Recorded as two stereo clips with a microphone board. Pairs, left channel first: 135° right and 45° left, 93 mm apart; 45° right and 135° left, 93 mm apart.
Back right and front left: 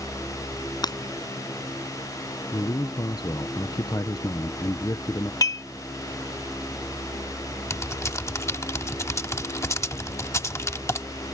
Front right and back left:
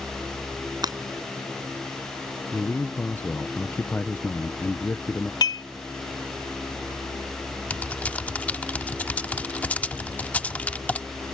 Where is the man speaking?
105° right.